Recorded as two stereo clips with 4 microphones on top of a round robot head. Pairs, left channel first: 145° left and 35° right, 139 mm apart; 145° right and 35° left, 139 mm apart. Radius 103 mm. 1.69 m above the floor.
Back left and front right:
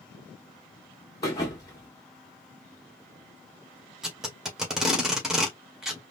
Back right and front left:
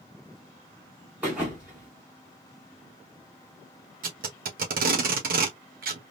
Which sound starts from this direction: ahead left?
Tape being pulled, at 4.0 s.